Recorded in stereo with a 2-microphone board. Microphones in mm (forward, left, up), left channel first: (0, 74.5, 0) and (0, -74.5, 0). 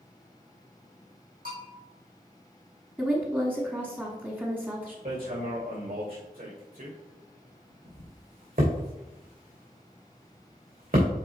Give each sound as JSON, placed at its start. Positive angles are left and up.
{"t": 1.4, "sound": "a bell", "side_deg": -80, "distance_m": 3.5}
{"t": 3.0, "sound": "a woman speaking", "side_deg": -10, "distance_m": 1.1}
{"t": 5.0, "sound": "hammering", "side_deg": -75, "distance_m": 3.0}